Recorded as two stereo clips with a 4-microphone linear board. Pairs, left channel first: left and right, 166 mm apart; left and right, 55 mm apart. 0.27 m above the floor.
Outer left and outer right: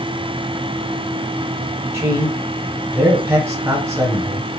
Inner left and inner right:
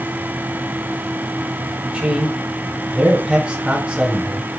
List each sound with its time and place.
1.9 s a man speaking: 15° right (ahead or behind), 1.4 m